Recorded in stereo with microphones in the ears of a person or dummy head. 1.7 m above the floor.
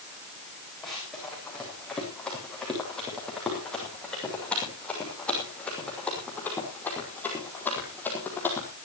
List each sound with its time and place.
0.8 s running footsteps: centre (ahead or behind), 8 m; by 8.7 s 10° left (ahead or behind), 4 m